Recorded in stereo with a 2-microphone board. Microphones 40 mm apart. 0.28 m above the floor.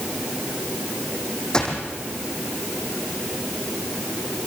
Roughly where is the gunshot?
Left.